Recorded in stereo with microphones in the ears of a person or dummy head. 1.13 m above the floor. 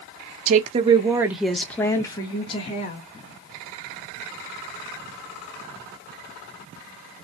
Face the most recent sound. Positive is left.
turn(degrees=35)  # may be behind; listen again after turning